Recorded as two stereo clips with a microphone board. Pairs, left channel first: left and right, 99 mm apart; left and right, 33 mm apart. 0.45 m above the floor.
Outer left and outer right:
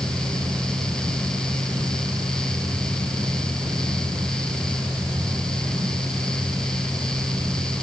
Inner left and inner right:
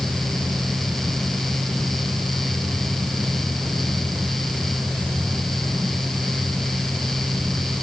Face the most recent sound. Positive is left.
No sound to turn to.